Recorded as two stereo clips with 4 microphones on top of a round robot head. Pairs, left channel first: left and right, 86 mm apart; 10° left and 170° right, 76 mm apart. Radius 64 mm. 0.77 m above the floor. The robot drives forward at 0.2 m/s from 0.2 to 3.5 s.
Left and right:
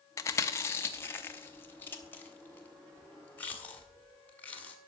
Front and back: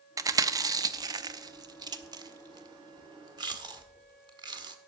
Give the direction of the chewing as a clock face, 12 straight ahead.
7 o'clock.